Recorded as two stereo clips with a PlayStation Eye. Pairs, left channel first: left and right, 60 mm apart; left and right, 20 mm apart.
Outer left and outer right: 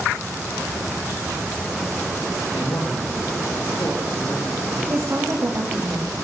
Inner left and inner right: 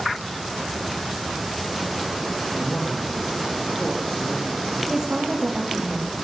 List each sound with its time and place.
2.5 s a man speaking: 70° left (ahead or behind), 3.5 m
4.9 s a woman speaking: 50° right (ahead or behind), 2.0 m